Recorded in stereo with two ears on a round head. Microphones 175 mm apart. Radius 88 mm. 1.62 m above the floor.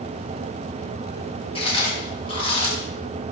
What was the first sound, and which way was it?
Chewing, 30° left (ahead or behind).